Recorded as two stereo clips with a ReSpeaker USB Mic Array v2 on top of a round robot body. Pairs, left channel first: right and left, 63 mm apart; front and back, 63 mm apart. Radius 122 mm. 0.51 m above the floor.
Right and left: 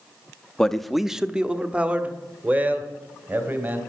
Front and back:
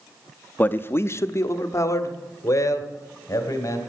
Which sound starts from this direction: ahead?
A man speaking, at 0.6 s.